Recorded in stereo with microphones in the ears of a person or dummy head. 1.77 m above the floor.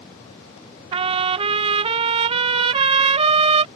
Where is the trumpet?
25° right (ahead or behind).